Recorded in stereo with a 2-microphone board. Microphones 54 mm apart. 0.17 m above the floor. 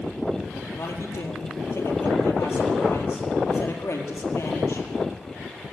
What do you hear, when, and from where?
0.8 s a man speaking: 55° left (ahead or behind), 4.5 m